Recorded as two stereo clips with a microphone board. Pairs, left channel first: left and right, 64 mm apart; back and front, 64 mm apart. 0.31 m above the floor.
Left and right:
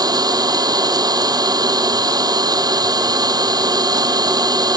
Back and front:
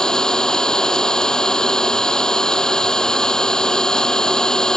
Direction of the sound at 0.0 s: 100° right.